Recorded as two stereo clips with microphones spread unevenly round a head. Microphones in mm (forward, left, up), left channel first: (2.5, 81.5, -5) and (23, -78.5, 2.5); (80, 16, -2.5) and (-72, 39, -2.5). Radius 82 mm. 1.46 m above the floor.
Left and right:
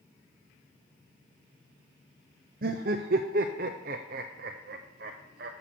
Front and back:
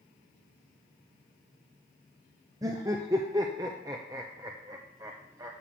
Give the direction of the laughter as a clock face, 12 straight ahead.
4 o'clock.